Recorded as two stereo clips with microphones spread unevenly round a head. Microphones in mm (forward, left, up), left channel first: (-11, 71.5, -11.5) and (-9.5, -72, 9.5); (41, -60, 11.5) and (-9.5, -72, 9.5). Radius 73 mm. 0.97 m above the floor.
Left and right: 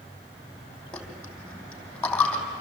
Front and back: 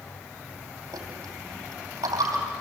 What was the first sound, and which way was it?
A dropped coin, 175° left.